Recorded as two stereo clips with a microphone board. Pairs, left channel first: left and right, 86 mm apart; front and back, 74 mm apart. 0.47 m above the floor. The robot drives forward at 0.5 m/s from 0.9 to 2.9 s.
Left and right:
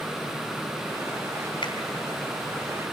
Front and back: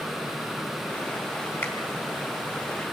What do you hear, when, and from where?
1.6 s a finger snap: 60° left, 4.5 m